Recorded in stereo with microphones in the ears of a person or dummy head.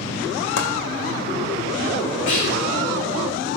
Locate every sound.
0.6 s chopping: 70° left (ahead or behind), 1.3 m
2.3 s whispering: 70° left (ahead or behind), 1.4 m